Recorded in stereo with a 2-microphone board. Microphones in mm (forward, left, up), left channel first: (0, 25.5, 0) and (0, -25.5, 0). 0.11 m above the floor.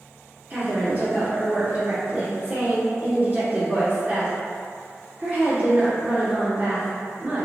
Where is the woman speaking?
30° right (ahead or behind), 1.4 m.